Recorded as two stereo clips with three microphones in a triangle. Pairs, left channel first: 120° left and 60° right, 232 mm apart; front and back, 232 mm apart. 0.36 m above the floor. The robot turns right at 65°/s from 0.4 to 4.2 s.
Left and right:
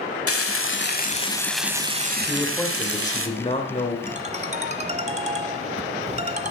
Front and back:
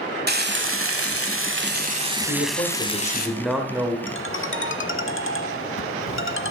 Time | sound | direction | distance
0.3 | frying | 135° left | 1.0 m
2.3 | a man speaking | 15° left | 1.5 m
4.1 | a ringtone | 15° right | 0.7 m